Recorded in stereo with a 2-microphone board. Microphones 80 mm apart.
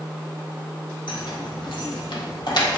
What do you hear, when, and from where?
1.1 s keys jangling: 80° left, 1.9 m; by 2.8 s 65° left (ahead or behind), 1.5 m